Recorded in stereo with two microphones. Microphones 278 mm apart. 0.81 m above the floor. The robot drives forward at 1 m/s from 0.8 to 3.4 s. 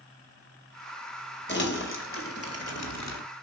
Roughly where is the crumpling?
Left.